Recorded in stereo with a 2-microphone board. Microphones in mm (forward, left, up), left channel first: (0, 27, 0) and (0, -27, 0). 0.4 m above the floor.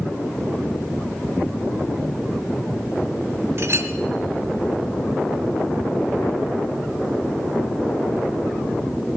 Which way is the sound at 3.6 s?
60° right (ahead or behind).